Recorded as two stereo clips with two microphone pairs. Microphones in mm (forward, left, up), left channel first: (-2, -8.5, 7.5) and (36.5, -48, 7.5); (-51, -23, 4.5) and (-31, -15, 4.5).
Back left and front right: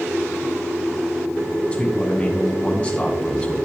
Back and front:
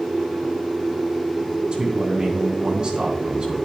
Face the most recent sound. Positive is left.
turn(degrees=65)